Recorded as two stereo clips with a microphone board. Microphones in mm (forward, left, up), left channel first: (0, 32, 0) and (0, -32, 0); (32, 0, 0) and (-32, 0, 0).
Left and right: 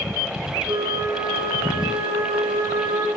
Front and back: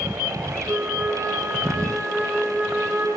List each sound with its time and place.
0.7 s a flute: 115° right, 4.5 m